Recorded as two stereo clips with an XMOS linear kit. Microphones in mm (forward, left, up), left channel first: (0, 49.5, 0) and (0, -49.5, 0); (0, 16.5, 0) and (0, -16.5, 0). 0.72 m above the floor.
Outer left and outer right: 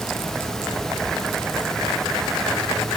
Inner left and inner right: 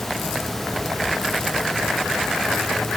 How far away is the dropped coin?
No dropped coin in this recording.